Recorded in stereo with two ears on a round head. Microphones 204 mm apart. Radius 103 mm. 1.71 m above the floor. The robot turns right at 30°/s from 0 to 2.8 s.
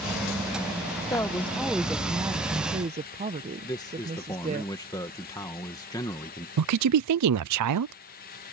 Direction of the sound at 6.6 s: 80° right.